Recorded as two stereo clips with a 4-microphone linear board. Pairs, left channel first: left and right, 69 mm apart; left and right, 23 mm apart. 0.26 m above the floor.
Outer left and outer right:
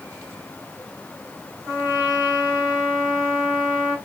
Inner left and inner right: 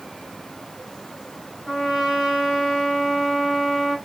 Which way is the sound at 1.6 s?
20° right (ahead or behind).